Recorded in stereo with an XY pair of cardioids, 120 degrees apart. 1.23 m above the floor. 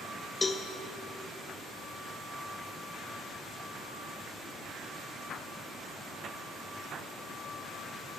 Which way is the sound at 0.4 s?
20° left.